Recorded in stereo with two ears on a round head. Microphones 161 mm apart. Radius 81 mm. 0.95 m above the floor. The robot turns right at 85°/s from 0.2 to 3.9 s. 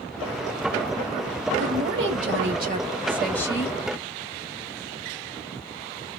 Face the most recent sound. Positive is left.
turn(degrees=55)